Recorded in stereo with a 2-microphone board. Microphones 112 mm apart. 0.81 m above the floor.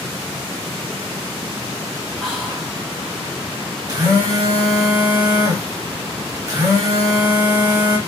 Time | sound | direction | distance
2.2 | whispering | centre (ahead or behind) | 1.5 m
3.9 | a phone buzzing | 30° right (ahead or behind) | 1.1 m